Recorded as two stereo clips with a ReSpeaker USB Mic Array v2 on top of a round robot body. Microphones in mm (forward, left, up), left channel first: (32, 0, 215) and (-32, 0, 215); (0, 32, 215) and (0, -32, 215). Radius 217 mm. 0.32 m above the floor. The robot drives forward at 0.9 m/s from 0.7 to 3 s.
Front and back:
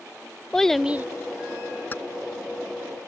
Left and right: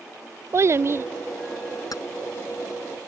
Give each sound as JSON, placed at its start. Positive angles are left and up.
{"t": 0.5, "sound": "a child speaking", "azimuth_deg": -80}
{"t": 1.9, "sound": "keys jangling", "azimuth_deg": 60}